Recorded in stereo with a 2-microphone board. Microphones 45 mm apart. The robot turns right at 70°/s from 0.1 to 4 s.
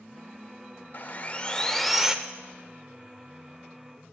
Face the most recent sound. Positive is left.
turn(degrees=-35)